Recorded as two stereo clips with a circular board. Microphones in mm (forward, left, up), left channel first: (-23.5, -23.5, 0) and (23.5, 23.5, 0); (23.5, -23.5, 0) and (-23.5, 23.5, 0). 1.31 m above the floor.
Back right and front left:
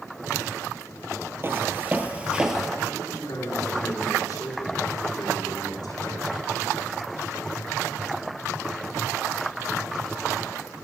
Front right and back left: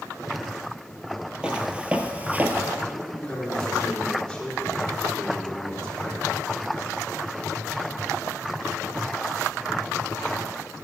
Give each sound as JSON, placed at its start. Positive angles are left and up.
{"t": 1.4, "sound": "footsteps", "azimuth_deg": 65, "distance_m": 1.7}
{"t": 2.9, "sound": "a man speaking", "azimuth_deg": -125, "distance_m": 4.5}